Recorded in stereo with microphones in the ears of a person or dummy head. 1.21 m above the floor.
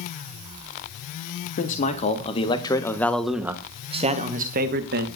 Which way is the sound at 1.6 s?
45° left (ahead or behind).